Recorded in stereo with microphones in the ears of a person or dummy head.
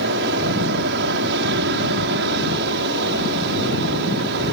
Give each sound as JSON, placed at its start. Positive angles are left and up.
{"t": 0.0, "sound": "an aircraft", "side_deg": -60}